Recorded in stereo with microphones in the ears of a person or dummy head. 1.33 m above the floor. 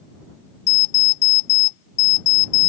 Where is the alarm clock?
65° left (ahead or behind).